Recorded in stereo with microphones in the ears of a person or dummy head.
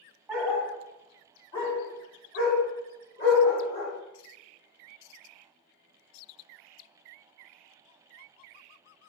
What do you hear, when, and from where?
0.3 s a dog barking: 5° right (ahead or behind), 1.5 m; by 3.9 s 55° left (ahead or behind), 2.0 m